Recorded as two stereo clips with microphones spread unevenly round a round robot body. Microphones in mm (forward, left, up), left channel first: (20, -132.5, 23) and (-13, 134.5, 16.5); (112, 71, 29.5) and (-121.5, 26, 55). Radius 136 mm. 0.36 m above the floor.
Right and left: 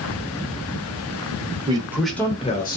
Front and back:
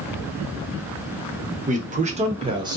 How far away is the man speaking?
About 0.9 m.